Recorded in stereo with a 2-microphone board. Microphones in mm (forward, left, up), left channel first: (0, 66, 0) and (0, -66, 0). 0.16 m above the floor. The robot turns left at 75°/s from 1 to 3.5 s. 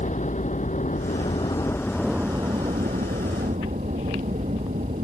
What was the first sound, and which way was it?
A helicopter, 65° left (ahead or behind).